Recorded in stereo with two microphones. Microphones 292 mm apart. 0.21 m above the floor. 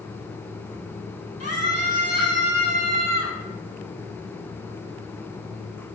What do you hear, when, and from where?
1.4 s a scream: 55° left (ahead or behind), 5.5 m; by 3.4 s 60° left (ahead or behind), 7.5 m